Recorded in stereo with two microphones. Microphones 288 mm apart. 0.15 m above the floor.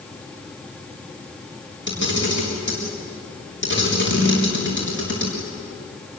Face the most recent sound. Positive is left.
turn(degrees=40)  # may be behind; listen again after turning